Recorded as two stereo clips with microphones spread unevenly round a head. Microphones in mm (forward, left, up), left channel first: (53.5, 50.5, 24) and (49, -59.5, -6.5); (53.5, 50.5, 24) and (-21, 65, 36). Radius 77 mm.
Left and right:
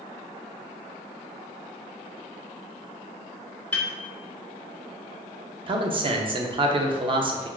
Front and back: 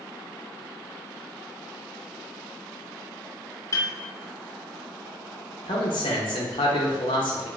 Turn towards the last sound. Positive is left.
turn(degrees=-45)